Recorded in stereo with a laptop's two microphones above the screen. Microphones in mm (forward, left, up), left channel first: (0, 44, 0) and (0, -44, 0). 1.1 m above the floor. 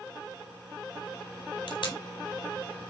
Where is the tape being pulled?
80° left, 3.5 m.